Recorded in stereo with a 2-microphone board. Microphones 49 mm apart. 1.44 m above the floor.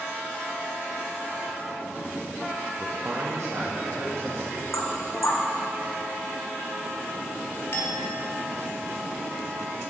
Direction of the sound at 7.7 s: 60° left (ahead or behind).